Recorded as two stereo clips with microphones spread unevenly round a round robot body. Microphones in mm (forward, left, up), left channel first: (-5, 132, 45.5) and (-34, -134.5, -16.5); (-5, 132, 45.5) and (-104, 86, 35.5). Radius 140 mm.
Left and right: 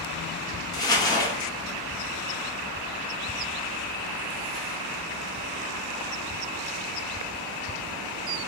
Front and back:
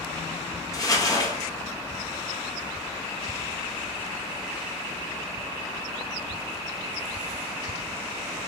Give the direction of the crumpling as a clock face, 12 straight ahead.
12 o'clock.